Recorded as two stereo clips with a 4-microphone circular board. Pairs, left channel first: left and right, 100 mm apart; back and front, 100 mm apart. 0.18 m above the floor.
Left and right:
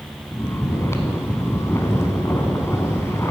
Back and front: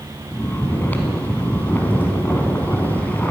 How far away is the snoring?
About 0.7 m.